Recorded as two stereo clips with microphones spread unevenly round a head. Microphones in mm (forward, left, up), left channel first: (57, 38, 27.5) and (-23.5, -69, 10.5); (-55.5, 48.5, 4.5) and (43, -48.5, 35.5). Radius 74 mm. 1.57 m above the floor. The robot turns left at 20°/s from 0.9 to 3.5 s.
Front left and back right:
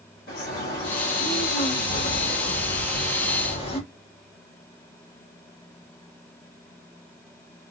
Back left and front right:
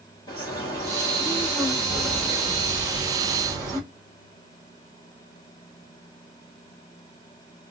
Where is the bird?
65° left, 1.7 m; by 3.8 s 15° left, 1.7 m.